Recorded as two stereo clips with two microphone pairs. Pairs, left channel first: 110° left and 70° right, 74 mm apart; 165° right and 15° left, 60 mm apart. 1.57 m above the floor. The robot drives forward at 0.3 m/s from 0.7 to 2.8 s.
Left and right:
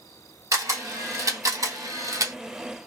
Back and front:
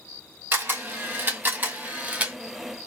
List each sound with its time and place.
0.5 s a camera shutter: 35° right, 1.5 m; by 2.4 s 50° right, 1.2 m